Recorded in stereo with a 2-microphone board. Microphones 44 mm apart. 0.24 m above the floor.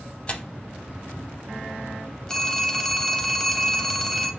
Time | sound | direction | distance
0.3 | tearing paper | 30° left (ahead or behind) | 0.6 m
2.3 | a phone ringing | 10° left (ahead or behind) | 0.6 m